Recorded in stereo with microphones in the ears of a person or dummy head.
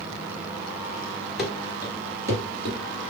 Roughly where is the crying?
No crying in this recording.